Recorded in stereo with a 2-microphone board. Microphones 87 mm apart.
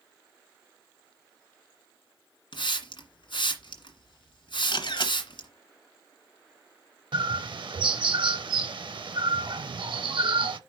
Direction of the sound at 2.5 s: 75° left (ahead or behind).